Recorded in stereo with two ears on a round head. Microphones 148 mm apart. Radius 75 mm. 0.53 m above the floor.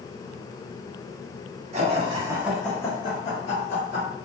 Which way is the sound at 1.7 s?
45° right (ahead or behind).